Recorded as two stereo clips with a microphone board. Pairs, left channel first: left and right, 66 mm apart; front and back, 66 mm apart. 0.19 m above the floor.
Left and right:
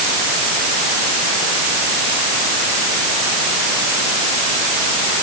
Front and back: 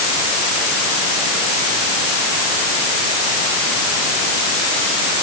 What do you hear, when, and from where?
Only background noise.